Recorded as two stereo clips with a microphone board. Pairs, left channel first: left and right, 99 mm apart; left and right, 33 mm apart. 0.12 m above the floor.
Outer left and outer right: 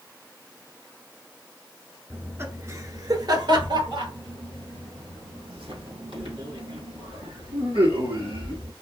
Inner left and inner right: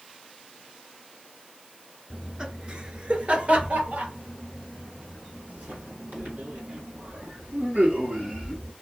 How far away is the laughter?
About 1.3 m.